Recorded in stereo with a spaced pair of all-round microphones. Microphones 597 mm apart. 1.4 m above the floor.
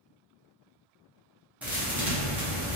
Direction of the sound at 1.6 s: 5° right (ahead or behind).